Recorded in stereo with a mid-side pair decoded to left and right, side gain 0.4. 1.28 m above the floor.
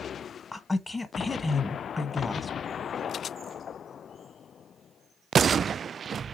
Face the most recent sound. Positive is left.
turn(degrees=20)